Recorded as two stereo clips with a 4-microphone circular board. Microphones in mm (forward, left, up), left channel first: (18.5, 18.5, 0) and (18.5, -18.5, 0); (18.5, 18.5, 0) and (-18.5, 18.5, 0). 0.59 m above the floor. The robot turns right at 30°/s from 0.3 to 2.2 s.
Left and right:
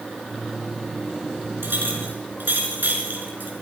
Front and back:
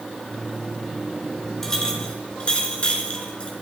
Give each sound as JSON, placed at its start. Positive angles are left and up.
{"t": 1.6, "sound": "a clink", "azimuth_deg": -75, "distance_m": 4.5}